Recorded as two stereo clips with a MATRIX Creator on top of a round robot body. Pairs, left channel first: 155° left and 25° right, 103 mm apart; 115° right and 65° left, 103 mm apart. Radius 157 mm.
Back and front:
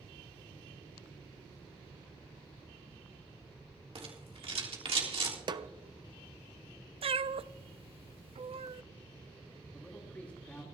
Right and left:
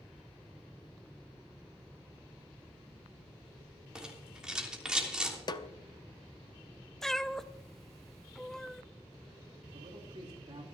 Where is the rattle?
15° right, 3 m.